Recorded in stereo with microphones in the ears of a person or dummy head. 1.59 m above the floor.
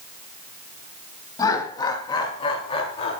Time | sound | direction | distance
1.4 | laughter | 15° left (ahead or behind) | 3 m